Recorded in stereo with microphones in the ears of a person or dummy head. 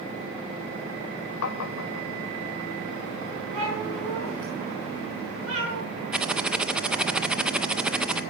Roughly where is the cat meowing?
Right.